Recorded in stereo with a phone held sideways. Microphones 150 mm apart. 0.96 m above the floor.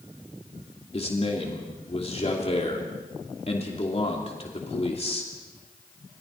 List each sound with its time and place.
0.9 s a man speaking: 45° left (ahead or behind), 3 m